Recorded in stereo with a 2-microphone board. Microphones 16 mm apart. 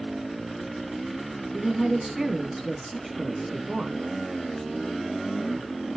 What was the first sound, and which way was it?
A woman speaking, 30° right (ahead or behind).